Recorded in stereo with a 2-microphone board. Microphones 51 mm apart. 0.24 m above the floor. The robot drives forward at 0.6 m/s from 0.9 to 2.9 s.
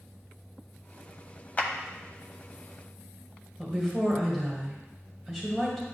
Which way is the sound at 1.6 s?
30° left (ahead or behind).